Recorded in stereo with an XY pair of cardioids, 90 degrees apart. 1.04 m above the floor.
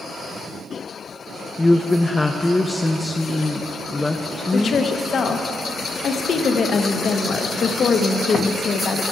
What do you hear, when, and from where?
1.6 s a woman speaking: 20° left, 0.6 m
4.5 s a woman speaking: 60° left, 0.9 m